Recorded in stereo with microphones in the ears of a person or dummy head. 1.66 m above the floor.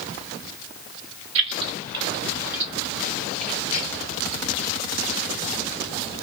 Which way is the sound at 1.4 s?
35° right (ahead or behind).